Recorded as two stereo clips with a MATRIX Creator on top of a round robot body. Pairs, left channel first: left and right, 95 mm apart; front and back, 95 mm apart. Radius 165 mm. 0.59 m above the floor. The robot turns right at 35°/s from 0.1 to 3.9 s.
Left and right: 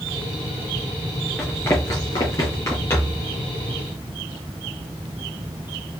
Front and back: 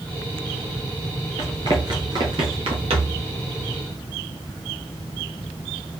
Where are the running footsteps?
175° left, 0.6 m; by 3.2 s 165° left, 1.2 m.